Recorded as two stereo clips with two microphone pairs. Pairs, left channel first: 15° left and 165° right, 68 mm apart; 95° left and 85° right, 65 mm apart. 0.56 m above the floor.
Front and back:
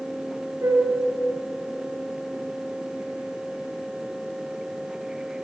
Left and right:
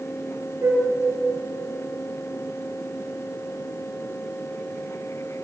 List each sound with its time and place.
0.6 s a flute: 125° right, 3 m